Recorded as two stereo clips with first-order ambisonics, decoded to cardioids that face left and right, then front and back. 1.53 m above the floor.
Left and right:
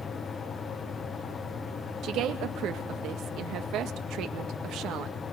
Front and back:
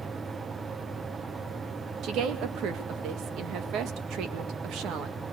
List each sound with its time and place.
2.0 s a woman speaking: 135° right, 1.9 m